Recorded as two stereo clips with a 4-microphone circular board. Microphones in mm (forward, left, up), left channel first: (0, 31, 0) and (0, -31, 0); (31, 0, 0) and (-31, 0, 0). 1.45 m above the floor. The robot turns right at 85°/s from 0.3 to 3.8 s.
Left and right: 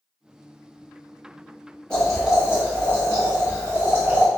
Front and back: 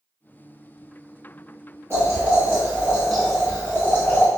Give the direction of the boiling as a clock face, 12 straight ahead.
7 o'clock.